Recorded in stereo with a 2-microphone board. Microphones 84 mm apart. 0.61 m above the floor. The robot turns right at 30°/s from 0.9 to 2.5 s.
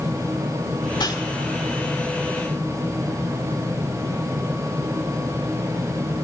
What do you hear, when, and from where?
0.9 s a whoosh: 60° left (ahead or behind), 1.8 m